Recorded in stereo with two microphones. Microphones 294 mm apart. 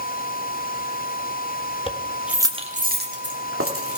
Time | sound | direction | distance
1.9 | keys jangling | 20° left (ahead or behind) | 1.1 m